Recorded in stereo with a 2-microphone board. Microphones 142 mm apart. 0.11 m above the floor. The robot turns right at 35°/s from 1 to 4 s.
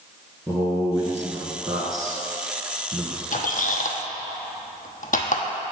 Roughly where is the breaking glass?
I don't hear breaking glass.